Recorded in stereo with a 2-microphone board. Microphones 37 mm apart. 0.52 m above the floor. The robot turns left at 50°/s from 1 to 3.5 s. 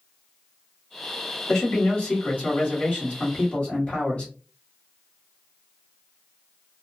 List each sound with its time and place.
1.5 s a man speaking: 160° left, 1.6 m; by 4.3 s 55° left, 1.6 m